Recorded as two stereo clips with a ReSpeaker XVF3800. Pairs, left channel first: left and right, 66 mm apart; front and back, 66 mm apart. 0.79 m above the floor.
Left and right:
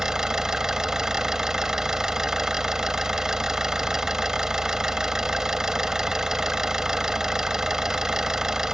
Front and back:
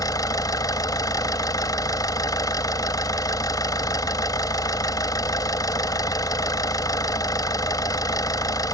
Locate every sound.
0.0 s an engine running: 10° right